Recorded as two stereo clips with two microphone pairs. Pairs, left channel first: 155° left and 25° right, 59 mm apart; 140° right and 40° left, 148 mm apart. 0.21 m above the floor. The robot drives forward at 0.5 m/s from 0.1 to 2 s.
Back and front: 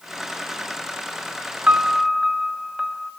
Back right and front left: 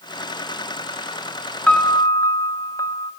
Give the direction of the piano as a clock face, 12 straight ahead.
2 o'clock.